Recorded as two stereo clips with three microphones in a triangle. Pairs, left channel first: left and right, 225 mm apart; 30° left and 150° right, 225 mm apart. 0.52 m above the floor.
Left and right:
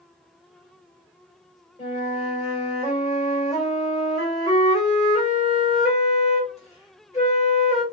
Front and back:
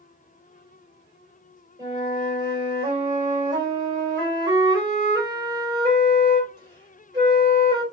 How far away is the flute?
About 1.7 m.